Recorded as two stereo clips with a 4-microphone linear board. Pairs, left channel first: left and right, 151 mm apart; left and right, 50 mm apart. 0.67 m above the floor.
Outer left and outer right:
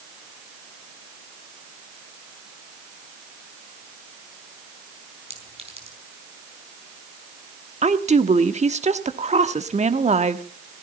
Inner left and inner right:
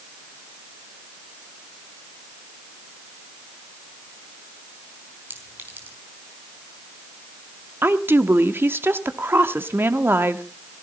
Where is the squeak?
I don't hear a squeak.